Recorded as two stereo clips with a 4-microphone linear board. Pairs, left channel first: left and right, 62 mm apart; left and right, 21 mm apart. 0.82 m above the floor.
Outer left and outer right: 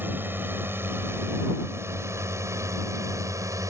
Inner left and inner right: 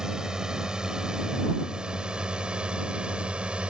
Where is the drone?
30° right (ahead or behind); by 3.7 s 55° right (ahead or behind).